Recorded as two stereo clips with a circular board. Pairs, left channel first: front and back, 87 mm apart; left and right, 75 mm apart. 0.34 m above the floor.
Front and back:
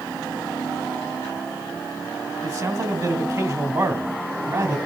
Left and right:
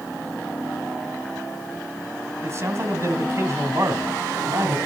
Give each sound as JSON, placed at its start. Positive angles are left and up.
{"t": 2.4, "sound": "a man speaking", "azimuth_deg": -140, "distance_m": 2.5}